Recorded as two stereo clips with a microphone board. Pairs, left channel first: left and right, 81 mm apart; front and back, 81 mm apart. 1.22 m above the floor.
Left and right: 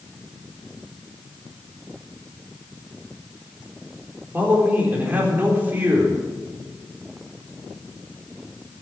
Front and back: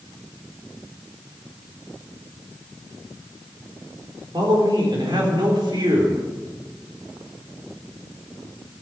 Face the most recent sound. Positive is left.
turn(degrees=-155)